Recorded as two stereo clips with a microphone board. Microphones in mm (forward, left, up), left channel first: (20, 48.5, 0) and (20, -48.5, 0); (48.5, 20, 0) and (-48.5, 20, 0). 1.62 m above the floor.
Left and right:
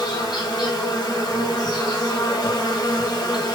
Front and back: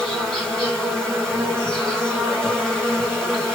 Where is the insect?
85° left, 1.8 m.